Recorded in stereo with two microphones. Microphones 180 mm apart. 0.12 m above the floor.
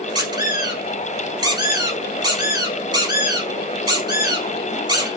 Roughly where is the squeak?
Right.